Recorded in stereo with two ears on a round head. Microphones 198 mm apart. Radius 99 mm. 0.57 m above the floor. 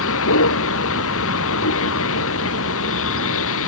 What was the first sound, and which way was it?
A vehicle, 65° left (ahead or behind).